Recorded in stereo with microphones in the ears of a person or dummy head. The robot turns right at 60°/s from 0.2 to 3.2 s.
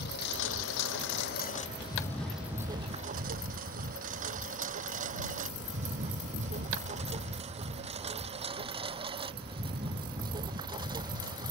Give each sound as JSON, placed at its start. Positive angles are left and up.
{"t": 0.0, "sound": "a lawn mower", "side_deg": 65}